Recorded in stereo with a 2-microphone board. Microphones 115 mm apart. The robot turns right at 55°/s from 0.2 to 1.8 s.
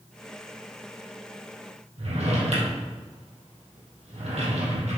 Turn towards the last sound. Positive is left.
turn(degrees=-75)  # may be behind; listen again after turning